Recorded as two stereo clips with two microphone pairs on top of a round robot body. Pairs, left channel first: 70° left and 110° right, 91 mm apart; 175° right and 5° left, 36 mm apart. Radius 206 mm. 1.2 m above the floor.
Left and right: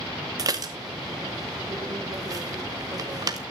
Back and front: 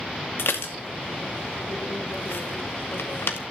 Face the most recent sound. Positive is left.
turn(degrees=-160)